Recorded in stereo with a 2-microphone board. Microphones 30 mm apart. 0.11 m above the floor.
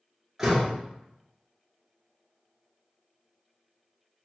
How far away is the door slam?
About 0.9 m.